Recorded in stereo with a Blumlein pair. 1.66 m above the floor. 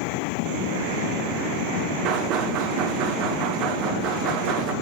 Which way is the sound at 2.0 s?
40° right.